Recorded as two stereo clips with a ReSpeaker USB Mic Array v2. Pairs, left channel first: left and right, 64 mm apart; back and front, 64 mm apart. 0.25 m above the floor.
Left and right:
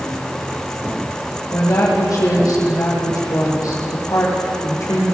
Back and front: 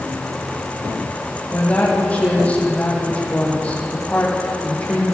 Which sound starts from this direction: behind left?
A woman speaking, at 1.5 s.